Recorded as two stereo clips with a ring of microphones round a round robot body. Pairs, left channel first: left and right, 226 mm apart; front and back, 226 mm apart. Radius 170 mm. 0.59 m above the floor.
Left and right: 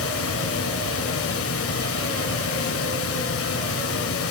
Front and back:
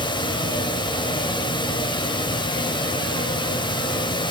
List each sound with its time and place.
0.0 s running water: 70° left, 1.7 m